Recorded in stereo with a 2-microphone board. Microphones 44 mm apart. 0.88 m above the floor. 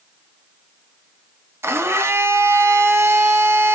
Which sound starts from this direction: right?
A blender, at 1.6 s.